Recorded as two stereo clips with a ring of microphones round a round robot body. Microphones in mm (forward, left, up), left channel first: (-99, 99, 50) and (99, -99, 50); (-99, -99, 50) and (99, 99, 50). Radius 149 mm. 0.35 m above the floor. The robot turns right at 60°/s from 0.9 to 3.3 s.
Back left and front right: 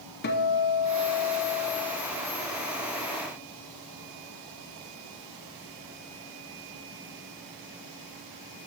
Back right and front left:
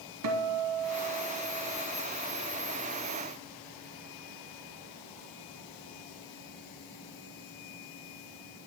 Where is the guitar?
80° left, 0.9 m; by 1.9 s 140° left, 0.9 m.